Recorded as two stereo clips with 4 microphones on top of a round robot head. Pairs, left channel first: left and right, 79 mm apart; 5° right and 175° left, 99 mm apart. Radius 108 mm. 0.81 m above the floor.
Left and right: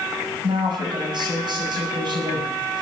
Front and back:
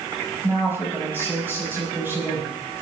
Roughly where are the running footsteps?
I don't hear running footsteps.